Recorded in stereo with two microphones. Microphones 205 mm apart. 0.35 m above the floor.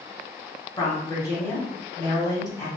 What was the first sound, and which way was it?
A woman speaking, 20° left (ahead or behind).